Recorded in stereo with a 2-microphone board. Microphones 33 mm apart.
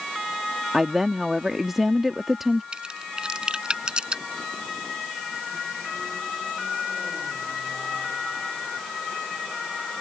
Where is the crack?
30° right (ahead or behind).